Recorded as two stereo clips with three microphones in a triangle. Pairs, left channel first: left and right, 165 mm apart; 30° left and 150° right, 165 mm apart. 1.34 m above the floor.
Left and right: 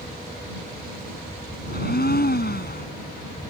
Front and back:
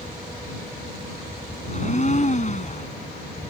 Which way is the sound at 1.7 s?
75° left.